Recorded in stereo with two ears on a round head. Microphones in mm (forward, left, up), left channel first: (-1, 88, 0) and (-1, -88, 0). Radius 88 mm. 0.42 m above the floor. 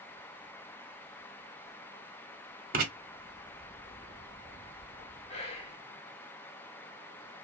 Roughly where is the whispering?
Left.